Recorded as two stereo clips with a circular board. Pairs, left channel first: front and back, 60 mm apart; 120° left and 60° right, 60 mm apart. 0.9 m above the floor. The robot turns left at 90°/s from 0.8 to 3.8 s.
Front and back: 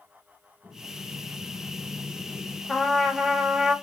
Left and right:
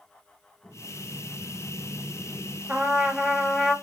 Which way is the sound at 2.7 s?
60° right.